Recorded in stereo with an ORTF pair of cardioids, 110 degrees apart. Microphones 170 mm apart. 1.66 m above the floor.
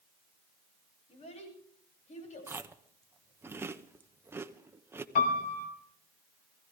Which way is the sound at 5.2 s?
55° left.